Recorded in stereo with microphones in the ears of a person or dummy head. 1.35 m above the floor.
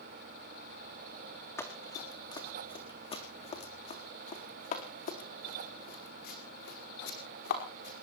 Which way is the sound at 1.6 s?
15° left (ahead or behind).